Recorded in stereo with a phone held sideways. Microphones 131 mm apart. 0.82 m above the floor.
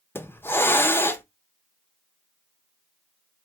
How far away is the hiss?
About 0.5 m.